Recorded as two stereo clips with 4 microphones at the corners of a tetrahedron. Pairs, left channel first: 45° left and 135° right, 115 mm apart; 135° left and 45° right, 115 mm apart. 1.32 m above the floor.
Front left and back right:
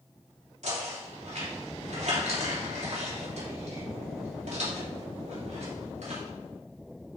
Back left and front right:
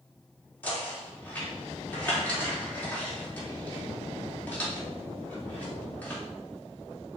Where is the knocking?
150° right, 3 m.